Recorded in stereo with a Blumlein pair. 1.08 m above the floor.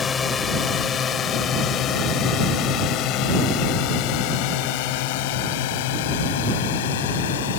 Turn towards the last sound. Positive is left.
turn(degrees=55)